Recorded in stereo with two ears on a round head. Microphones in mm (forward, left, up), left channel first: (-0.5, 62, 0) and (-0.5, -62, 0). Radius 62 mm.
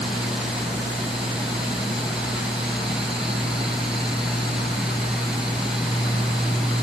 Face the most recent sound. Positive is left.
No sound to turn to.